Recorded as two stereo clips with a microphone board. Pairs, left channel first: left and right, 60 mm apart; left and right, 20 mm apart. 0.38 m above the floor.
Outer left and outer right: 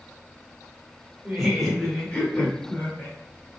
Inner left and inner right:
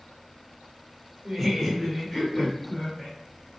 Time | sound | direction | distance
1.2 | laughter | 10° right (ahead or behind) | 0.8 m